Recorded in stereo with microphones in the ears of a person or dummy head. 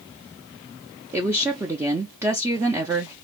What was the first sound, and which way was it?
A woman speaking, 15° right (ahead or behind).